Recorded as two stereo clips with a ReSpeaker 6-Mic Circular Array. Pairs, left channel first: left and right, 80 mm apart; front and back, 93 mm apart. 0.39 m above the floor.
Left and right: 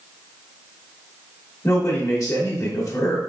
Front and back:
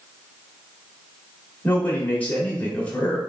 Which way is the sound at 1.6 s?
70° left.